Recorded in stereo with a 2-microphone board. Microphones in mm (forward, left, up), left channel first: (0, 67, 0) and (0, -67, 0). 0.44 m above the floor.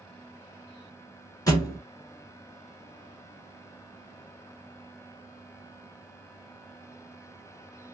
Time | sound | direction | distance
1.5 | a thud | 30° left (ahead or behind) | 1.3 m